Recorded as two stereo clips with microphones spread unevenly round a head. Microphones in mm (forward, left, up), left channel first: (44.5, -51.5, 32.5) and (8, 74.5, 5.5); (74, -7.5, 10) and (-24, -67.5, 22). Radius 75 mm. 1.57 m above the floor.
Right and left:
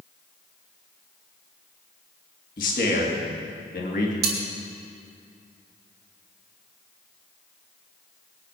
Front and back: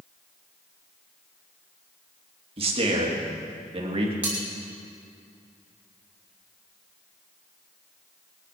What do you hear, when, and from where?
2.6 s a man speaking: 110° right, 3 m
4.2 s cutlery clinking: 135° left, 2.5 m